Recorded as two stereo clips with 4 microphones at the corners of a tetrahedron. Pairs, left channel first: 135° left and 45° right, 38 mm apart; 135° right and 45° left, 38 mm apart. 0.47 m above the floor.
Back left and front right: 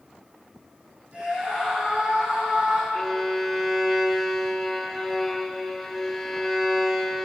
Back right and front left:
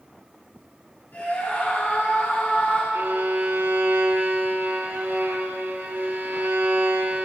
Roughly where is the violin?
Ahead left.